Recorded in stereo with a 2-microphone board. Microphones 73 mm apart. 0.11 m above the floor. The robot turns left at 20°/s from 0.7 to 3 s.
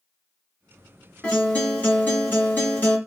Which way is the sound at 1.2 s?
15° left (ahead or behind).